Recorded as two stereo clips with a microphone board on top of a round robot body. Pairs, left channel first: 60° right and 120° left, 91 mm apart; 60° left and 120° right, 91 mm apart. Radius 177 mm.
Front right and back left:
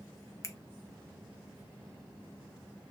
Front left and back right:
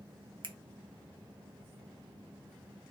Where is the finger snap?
110° right, 0.7 m.